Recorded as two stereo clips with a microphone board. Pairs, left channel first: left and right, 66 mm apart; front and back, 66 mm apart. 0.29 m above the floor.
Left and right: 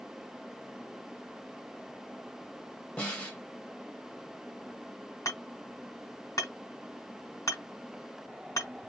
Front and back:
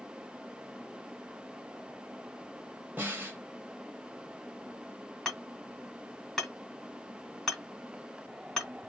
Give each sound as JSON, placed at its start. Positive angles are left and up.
{"t": 3.0, "sound": "a snare drum", "azimuth_deg": 145, "distance_m": 1.4}
{"t": 5.2, "sound": "hammering", "azimuth_deg": 80, "distance_m": 1.9}